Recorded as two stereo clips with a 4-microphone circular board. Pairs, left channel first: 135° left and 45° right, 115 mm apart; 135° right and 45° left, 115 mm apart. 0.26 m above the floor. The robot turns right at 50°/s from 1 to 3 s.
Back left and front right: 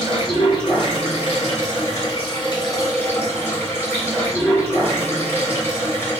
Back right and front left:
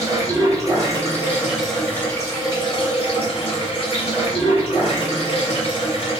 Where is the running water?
105° left, 1.5 m; by 6.2 s 155° right, 1.5 m.